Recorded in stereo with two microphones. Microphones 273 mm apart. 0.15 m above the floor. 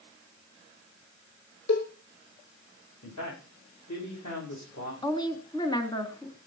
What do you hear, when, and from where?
1.7 s a cowbell: 70° left (ahead or behind), 2.5 m
3.0 s a man speaking: 80° left, 8 m
5.0 s a woman speaking: 15° left (ahead or behind), 1.4 m